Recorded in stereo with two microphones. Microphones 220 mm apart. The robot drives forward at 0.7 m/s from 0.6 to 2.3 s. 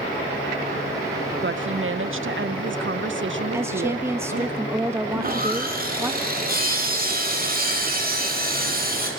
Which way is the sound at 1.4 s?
55° right (ahead or behind).